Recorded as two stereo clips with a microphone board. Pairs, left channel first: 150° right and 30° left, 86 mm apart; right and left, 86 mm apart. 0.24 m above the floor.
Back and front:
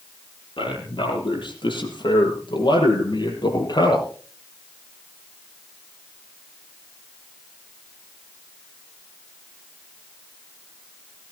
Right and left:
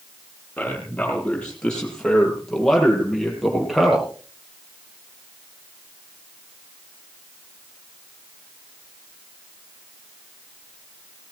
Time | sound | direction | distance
0.6 | a man speaking | 165° right | 7.5 m